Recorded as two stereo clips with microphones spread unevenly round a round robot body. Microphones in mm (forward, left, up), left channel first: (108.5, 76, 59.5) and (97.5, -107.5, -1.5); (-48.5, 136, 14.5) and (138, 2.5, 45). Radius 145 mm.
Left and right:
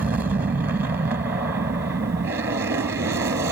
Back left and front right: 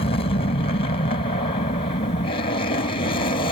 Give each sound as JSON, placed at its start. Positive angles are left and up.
{"t": 0.0, "sound": "an aircraft", "azimuth_deg": -160}